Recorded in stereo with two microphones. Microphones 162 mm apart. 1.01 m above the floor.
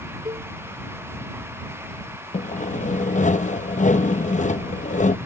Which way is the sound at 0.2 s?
30° right (ahead or behind).